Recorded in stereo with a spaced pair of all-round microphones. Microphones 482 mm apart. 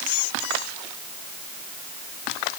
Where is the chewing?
I don't hear chewing.